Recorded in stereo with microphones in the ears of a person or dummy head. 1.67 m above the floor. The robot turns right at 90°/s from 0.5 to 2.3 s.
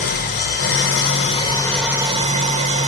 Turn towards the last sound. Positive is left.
turn(degrees=-135)